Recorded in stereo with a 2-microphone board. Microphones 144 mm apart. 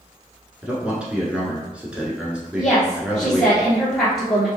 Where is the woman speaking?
5° right (ahead or behind), 1.4 m.